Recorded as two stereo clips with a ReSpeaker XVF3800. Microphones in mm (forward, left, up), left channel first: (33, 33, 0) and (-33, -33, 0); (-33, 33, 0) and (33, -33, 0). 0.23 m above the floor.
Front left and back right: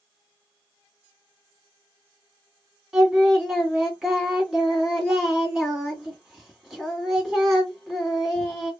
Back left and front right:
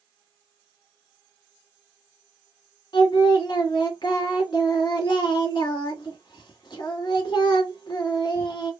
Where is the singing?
135° left, 1.6 m.